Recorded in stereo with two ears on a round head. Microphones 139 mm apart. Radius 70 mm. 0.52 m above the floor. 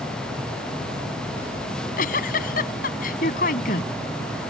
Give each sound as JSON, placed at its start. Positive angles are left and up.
{"t": 1.7, "sound": "a giggle", "side_deg": 55}